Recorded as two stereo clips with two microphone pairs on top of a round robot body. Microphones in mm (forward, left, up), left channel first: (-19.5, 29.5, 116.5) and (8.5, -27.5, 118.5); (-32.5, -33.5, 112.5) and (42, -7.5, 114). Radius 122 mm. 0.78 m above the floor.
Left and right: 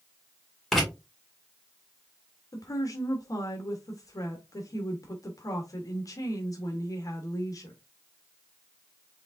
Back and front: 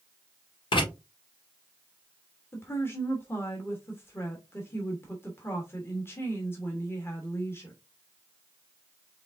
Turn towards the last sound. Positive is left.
turn(degrees=140)